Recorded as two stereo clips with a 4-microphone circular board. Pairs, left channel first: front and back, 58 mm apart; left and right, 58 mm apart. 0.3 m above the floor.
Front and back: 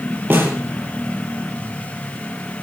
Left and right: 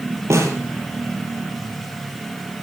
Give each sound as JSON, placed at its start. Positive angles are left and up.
{"t": 0.3, "sound": "a snare drum", "azimuth_deg": -125, "distance_m": 5.5}